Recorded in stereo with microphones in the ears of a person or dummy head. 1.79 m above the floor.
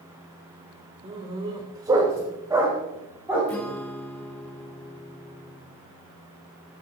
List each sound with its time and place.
1.0 s a dog barking: 35° right (ahead or behind), 2.5 m; by 3.5 s 10° right (ahead or behind), 4.5 m
3.5 s a guitar: 5° left (ahead or behind), 2 m